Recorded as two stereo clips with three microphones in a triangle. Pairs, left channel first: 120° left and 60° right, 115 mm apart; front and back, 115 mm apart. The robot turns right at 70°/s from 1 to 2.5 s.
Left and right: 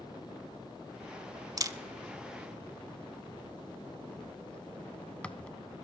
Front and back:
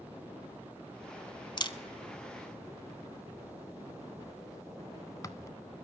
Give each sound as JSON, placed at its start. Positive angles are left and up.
{"t": 1.6, "sound": "a camera shutter", "azimuth_deg": -20, "distance_m": 0.7}